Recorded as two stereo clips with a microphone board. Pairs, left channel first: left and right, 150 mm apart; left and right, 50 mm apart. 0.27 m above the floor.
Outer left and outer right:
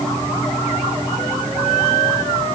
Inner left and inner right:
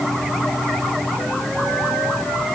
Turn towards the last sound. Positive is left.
No sound to turn to.